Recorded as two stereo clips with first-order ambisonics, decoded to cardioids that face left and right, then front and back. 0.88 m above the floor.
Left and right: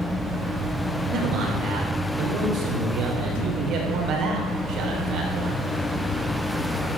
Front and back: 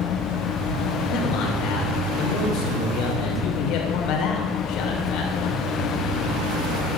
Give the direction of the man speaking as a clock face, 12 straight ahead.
1 o'clock.